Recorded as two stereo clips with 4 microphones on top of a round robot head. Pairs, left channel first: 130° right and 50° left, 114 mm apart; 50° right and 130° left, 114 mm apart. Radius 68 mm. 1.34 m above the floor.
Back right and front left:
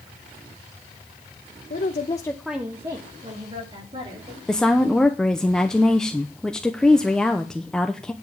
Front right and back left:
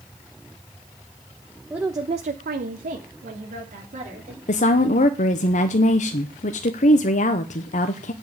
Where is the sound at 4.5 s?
45° right, 0.8 m.